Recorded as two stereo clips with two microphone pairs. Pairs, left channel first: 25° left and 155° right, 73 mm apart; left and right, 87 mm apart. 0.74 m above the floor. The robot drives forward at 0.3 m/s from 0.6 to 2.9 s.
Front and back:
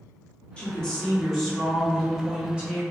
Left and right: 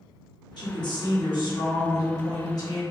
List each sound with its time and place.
0.6 s a woman speaking: 100° left, 1.0 m; by 2.8 s 135° left, 1.3 m